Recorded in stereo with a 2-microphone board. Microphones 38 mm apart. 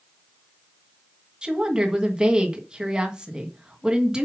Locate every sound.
1.4 s a woman speaking: 25° right (ahead or behind), 1.8 m